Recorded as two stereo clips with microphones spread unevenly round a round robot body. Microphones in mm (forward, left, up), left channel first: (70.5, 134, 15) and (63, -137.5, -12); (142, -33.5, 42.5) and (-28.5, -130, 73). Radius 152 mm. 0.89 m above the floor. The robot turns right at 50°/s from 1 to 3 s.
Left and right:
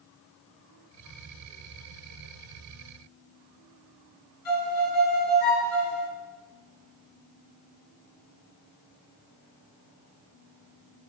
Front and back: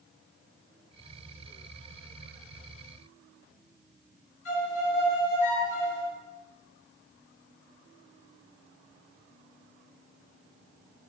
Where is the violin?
70° left, 5.5 m.